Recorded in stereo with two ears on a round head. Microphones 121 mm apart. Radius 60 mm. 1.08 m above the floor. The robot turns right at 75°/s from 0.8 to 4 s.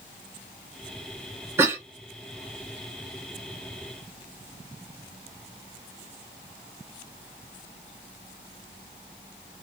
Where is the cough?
20° right (ahead or behind), 0.7 m; by 1.8 s 15° right (ahead or behind), 0.7 m.